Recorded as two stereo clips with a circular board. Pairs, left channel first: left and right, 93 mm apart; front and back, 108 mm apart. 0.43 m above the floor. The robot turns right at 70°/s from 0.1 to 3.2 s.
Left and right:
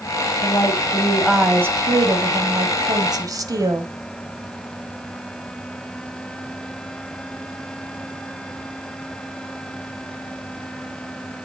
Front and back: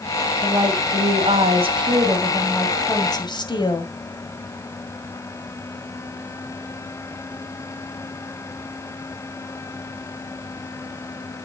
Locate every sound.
0.4 s a woman speaking: 120° left, 2 m; by 3.9 s 45° right, 2 m